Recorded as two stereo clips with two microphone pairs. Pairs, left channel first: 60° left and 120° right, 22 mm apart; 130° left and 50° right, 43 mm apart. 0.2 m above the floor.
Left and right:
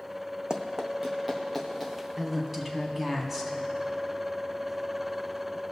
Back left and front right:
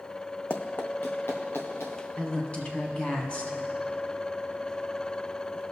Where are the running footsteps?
175° right, 0.7 m; by 2.1 s 145° left, 2.5 m.